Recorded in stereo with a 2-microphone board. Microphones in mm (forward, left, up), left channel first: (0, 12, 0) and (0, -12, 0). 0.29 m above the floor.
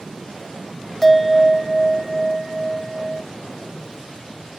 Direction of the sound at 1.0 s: 5° left (ahead or behind).